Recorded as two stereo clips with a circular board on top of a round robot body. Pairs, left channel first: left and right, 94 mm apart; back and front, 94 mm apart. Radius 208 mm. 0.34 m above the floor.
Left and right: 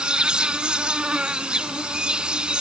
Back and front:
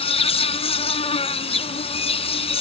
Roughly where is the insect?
Behind.